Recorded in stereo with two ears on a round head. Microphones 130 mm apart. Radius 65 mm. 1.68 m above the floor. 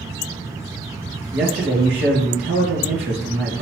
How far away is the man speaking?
About 2.5 m.